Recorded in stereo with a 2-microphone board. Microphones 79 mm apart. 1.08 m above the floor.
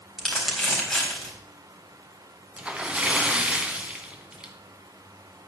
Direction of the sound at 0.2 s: 5° left (ahead or behind).